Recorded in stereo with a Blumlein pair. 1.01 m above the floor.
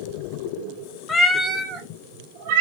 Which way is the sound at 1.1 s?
20° left.